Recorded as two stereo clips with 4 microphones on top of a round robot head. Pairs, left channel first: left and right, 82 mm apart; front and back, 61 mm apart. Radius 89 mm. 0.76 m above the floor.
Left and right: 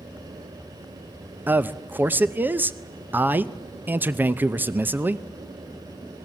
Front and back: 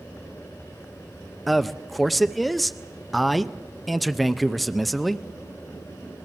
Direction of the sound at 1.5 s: 85° right.